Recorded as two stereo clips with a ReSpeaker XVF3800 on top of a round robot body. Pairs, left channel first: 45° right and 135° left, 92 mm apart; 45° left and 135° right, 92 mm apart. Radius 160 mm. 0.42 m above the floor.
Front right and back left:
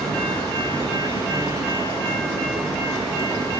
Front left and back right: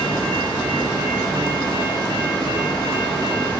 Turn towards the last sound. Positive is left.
turn(degrees=90)